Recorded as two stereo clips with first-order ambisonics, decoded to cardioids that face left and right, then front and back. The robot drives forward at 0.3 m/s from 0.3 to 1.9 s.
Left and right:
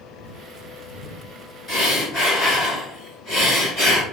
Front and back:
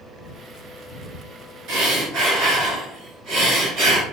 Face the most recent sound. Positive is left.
turn(degrees=160)